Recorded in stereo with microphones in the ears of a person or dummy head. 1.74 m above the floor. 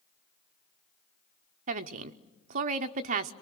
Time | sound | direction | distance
1.7 | a woman speaking | 45° right (ahead or behind) | 0.8 m